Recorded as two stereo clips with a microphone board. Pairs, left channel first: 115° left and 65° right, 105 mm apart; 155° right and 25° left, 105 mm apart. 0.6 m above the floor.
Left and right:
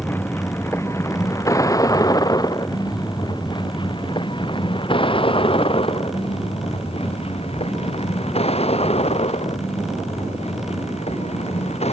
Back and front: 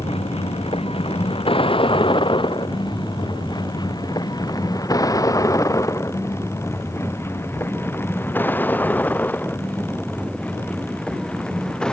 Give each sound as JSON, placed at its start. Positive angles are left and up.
{"t": 0.0, "sound": "a vehicle", "azimuth_deg": 180}